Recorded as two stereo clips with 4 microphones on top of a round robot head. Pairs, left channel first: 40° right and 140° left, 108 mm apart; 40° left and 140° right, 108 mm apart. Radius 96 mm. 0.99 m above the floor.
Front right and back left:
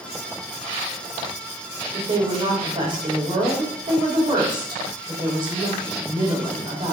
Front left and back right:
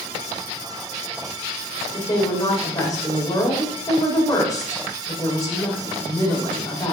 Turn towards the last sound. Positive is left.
turn(degrees=95)